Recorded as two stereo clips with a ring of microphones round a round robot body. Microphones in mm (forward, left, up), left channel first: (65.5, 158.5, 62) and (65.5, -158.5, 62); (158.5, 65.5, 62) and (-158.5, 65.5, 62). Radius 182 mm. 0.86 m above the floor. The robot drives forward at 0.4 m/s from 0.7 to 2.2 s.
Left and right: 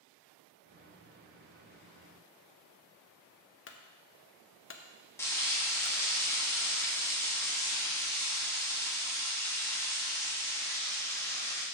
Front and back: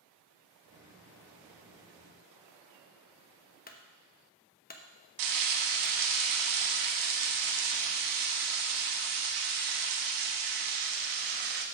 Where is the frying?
170° left, 1.1 m.